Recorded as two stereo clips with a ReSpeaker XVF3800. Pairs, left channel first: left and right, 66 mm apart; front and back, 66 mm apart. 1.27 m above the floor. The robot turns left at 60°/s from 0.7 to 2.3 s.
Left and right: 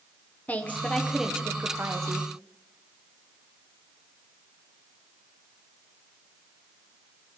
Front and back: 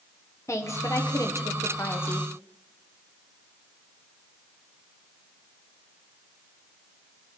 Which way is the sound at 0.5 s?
30° left.